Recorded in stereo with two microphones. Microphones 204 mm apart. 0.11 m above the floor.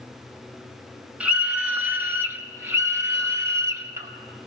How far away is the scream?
About 1.1 m.